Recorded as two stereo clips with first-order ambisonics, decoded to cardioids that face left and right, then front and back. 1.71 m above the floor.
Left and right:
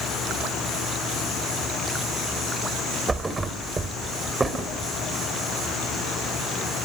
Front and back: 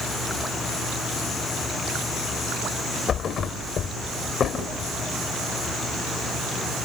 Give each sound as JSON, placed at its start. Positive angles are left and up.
{"t": 3.1, "sound": "a thud", "azimuth_deg": -25, "distance_m": 1.6}